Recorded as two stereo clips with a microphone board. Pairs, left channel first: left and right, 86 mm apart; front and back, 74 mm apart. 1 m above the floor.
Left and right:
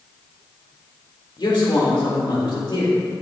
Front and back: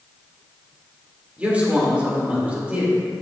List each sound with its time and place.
1.4 s a man speaking: 110° left, 2 m